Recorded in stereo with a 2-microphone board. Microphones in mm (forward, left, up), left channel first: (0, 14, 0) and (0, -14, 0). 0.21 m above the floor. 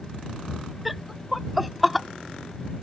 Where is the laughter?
5° right (ahead or behind).